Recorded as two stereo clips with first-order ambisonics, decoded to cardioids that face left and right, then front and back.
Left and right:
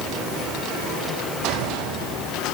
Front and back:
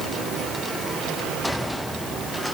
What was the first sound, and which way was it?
Only background noise.